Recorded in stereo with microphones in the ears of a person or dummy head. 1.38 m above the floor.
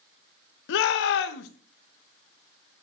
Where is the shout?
60° left (ahead or behind), 1.0 m.